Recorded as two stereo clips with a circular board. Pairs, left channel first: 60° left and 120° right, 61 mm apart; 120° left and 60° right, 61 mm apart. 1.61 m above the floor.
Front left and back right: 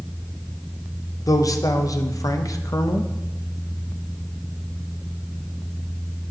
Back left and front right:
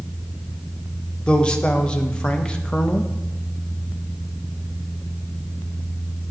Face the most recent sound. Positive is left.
turn(degrees=45)